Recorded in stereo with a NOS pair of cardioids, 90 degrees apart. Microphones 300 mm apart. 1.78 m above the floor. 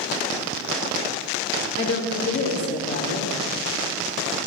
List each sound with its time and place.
1.8 s a woman speaking: 50° left, 3 m